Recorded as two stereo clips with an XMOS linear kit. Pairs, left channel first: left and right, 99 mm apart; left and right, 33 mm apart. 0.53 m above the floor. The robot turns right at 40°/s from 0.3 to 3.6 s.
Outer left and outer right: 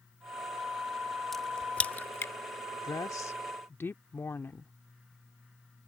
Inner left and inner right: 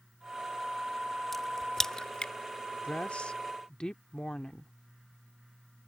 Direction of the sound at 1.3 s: Centre (ahead or behind).